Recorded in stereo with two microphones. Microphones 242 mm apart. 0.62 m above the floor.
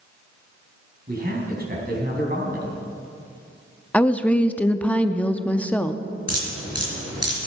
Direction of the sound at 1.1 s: 40° right (ahead or behind).